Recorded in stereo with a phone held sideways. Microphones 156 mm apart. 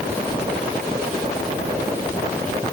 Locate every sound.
Only background noise.